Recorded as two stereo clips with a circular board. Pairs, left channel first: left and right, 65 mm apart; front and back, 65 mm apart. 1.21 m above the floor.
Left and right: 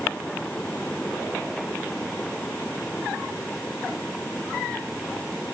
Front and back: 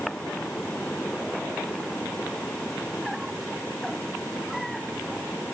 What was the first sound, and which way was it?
Only background noise.